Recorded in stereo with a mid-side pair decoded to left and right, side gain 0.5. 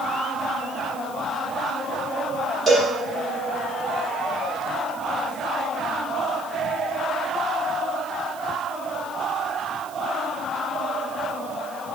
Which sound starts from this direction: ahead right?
A cowbell, at 2.7 s.